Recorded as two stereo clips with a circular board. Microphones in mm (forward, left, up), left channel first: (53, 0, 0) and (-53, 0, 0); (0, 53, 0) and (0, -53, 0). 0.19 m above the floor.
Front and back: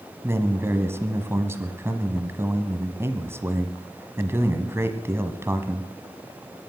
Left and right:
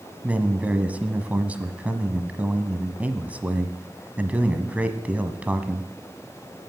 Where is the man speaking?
150° right, 1.3 m.